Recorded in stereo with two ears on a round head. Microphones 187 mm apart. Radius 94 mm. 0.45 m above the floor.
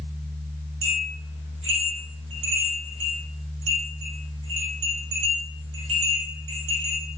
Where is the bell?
65° right (ahead or behind), 7.5 m.